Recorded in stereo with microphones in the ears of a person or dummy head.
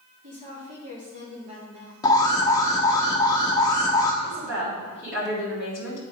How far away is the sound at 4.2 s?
About 3.5 m.